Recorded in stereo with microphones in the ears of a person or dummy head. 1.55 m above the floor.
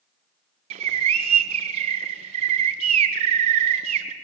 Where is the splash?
I don't hear a splash.